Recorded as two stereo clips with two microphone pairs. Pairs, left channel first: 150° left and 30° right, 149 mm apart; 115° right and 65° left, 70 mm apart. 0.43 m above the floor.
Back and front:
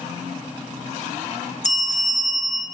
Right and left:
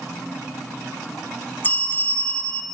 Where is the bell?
175° right, 0.7 m.